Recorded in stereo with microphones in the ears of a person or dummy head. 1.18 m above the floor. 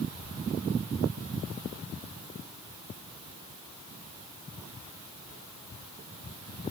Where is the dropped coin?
No dropped coin in this recording.